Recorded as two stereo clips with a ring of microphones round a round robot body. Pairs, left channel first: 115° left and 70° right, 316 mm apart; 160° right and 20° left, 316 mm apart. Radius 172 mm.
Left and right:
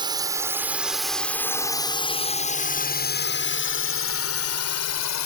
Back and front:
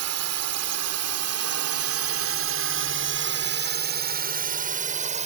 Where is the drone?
5° left; by 5.3 s 90° left.